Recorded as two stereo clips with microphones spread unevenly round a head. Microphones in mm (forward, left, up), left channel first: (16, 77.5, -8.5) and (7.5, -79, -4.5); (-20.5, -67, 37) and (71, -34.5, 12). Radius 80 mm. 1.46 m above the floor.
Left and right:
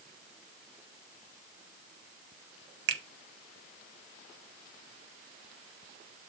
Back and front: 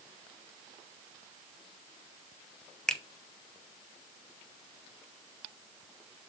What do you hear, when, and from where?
2.9 s a finger snap: 80° right, 0.9 m